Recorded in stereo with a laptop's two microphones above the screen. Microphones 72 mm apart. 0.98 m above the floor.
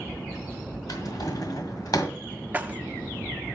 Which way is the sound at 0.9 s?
60° left (ahead or behind).